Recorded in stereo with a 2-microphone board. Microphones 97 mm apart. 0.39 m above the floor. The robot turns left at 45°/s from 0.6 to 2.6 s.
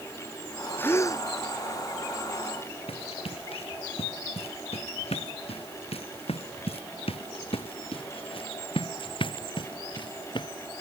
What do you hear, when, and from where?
0.8 s a gasp: 20° left (ahead or behind); by 1.2 s 40° left (ahead or behind)
2.9 s running footsteps: 80° left; by 10.5 s 50° left (ahead or behind)